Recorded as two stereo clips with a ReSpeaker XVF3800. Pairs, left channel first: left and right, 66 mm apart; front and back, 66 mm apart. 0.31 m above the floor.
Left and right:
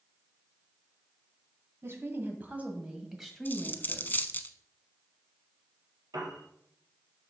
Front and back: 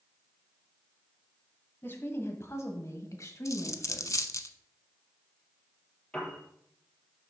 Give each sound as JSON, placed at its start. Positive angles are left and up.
{"t": 1.8, "sound": "a woman speaking", "azimuth_deg": -50, "distance_m": 1.9}
{"t": 3.5, "sound": "a dropped coin", "azimuth_deg": 30, "distance_m": 0.6}
{"t": 6.1, "sound": "a piano", "azimuth_deg": -75, "distance_m": 3.5}